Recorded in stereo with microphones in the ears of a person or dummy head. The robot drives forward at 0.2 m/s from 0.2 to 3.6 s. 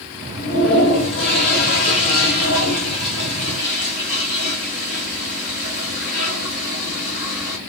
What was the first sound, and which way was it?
A toilet flushing, 60° left (ahead or behind).